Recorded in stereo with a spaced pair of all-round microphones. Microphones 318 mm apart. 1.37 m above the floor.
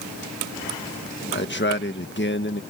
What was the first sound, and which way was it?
A man speaking, 35° left (ahead or behind).